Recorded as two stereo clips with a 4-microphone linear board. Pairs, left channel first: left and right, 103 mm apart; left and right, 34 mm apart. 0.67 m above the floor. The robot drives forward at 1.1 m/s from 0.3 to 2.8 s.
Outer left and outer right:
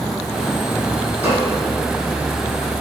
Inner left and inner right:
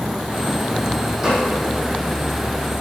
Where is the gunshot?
15° right (ahead or behind), 4 m.